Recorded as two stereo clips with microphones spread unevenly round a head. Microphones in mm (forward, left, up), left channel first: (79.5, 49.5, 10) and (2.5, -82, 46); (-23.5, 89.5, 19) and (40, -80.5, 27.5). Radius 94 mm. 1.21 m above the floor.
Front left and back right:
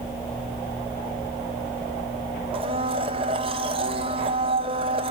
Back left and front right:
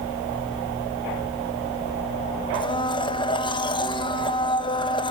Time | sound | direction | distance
2.5 | a blender | 175° left | 1.2 m